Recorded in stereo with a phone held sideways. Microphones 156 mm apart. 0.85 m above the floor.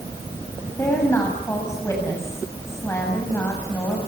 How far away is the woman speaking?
About 6 m.